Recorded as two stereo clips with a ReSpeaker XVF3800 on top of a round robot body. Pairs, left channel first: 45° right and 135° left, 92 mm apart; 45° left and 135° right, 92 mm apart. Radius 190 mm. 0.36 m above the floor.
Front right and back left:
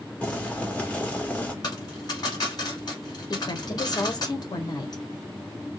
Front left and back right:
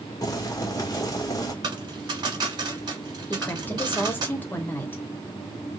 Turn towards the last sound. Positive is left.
turn(degrees=-20)